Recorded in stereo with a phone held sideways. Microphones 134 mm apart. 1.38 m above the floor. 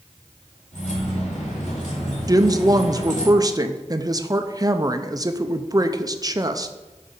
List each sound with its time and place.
0.7 s keys jangling: 75° left (ahead or behind), 2.5 m
2.3 s a woman speaking: 30° right (ahead or behind), 0.6 m